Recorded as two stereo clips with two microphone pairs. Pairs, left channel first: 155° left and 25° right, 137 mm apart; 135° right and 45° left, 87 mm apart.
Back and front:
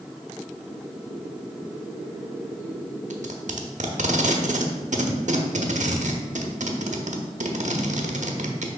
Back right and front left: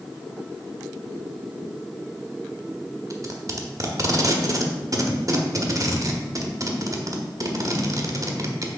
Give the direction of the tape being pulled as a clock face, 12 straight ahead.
12 o'clock.